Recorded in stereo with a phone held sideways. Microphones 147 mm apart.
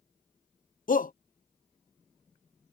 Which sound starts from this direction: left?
A shout, at 0.9 s.